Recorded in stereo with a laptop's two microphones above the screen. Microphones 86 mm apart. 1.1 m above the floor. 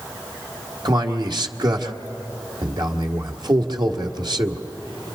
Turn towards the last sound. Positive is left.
turn(degrees=-55)  # may be behind; listen again after turning